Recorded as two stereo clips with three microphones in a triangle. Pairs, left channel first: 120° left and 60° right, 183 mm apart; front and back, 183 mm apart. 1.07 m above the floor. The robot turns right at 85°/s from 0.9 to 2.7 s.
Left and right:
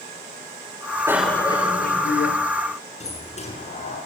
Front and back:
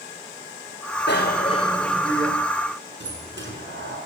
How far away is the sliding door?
About 6 m.